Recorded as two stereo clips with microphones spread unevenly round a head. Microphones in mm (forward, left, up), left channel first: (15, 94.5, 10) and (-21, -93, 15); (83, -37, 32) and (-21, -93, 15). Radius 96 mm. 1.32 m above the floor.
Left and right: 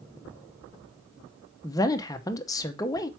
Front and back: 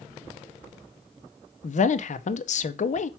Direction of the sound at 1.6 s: 5° left.